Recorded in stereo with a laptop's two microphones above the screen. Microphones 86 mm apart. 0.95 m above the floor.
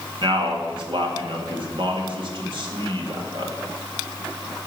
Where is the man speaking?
60° right (ahead or behind), 1.9 m.